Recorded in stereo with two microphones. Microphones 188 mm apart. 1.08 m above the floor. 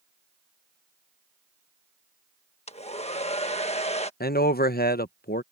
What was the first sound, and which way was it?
A hair dryer, 35° left (ahead or behind).